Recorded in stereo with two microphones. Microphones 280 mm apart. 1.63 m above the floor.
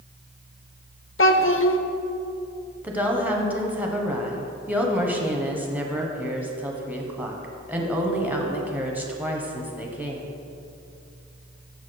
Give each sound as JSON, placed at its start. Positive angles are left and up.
{"t": 1.2, "sound": "a child speaking", "side_deg": 50, "distance_m": 0.6}
{"t": 2.8, "sound": "a woman speaking", "side_deg": -5, "distance_m": 1.2}